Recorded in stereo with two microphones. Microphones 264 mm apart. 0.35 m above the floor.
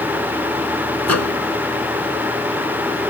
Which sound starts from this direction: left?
A microwave, at 1.0 s.